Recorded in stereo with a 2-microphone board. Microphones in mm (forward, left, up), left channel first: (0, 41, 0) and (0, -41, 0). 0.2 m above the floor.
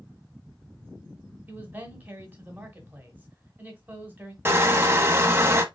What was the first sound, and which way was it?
A man speaking, 20° right (ahead or behind).